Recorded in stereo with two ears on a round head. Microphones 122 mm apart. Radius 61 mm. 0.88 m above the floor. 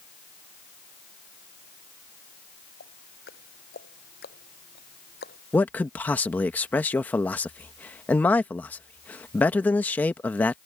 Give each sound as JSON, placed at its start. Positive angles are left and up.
{"t": 2.8, "sound": "ticking", "side_deg": 90}
{"t": 5.5, "sound": "a man speaking", "side_deg": 10}